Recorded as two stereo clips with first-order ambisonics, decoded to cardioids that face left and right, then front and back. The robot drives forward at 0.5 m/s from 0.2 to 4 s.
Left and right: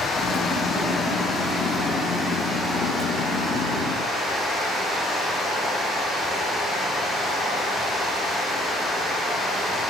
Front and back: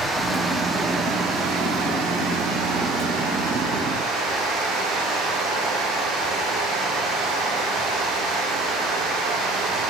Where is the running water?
100° left, 0.8 m; by 9.9 s 170° left, 2 m.